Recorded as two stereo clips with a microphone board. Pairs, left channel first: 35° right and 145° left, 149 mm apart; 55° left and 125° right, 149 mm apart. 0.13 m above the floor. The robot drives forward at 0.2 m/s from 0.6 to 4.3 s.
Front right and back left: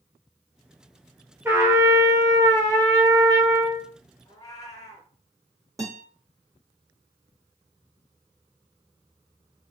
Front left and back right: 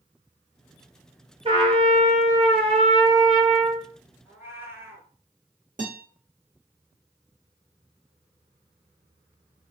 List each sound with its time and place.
1.4 s a trumpet: 145° right, 0.7 m; by 3.9 s 165° right, 1.1 m
4.2 s a cat meowing: 65° right, 0.8 m
5.8 s a guitar: 145° right, 1.2 m